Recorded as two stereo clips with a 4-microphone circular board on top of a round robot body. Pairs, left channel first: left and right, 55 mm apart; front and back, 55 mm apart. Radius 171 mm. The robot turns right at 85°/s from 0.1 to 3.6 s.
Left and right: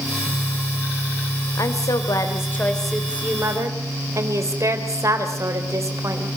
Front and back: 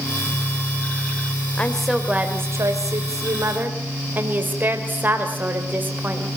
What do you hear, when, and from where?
1.6 s a woman speaking: 65° left, 2.5 m; by 6.3 s 120° right, 2.5 m